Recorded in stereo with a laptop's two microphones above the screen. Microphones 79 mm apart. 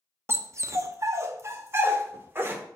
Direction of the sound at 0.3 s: 35° right (ahead or behind).